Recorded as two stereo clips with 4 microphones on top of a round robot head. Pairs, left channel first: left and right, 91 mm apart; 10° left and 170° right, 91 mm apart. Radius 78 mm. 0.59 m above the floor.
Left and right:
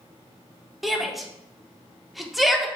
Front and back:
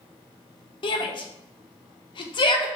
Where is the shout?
Straight ahead, 1.3 m.